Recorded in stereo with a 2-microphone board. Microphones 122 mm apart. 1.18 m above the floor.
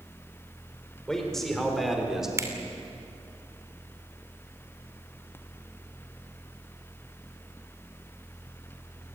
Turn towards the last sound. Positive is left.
turn(degrees=-25)  # may be behind; listen again after turning